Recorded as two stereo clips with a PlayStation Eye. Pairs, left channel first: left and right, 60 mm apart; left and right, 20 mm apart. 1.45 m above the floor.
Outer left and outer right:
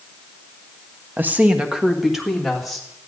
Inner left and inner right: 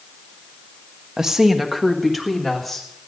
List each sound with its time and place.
1.2 s a woman speaking: 35° right (ahead or behind), 0.7 m; by 2.9 s 5° left (ahead or behind), 2.5 m